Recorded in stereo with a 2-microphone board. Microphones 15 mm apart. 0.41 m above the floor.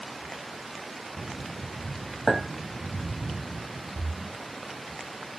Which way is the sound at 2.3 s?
45° left (ahead or behind).